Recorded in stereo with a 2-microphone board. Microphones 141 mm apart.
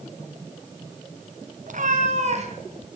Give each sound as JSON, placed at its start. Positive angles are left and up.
{"t": 1.7, "sound": "a cat meowing", "side_deg": -65, "distance_m": 1.9}